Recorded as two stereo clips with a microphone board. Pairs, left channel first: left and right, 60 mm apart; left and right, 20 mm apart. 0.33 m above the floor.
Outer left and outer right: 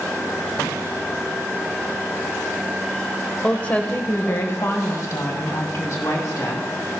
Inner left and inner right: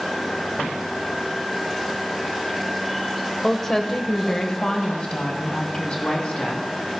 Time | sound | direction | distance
3.4 | a woman speaking | 20° left (ahead or behind) | 1.0 m